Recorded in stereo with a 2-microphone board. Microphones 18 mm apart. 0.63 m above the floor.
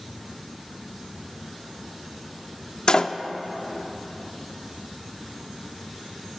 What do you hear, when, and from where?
2.9 s a door slam: 40° left (ahead or behind), 0.6 m